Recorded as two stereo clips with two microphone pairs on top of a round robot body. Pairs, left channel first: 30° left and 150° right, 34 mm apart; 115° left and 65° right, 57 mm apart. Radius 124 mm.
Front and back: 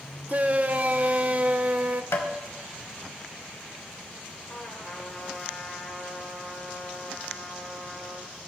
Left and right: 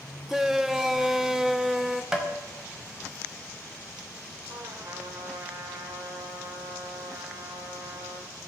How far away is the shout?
About 0.8 m.